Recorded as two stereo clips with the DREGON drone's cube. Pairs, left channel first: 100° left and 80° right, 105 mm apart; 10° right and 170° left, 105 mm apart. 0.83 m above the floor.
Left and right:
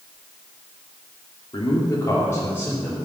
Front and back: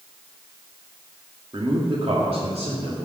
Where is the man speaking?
130° left, 2.0 m; by 3.1 s 175° left, 3 m.